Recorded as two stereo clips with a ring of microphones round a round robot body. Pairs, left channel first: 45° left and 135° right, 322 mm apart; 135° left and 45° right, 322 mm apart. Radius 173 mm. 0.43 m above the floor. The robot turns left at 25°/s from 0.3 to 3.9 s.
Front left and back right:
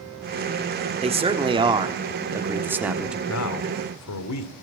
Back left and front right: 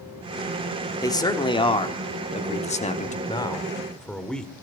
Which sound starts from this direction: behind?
A man speaking, at 1.0 s.